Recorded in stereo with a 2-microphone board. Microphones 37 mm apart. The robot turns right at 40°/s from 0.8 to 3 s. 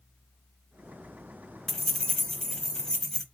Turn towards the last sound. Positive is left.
turn(degrees=20)  # may be behind; listen again after turning